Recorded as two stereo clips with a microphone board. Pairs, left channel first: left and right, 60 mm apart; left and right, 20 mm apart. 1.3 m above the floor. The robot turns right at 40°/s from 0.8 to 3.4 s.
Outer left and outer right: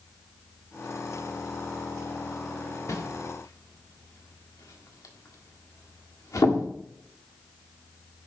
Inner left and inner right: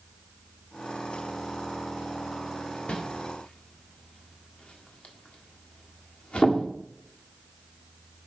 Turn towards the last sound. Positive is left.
turn(degrees=70)  # may be behind; listen again after turning